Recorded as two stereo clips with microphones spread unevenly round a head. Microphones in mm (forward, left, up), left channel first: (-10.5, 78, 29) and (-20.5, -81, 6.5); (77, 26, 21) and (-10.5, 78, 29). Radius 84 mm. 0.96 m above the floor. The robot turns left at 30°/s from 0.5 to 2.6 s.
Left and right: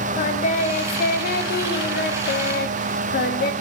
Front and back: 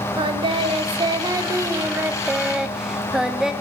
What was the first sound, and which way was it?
Singing, 125° left.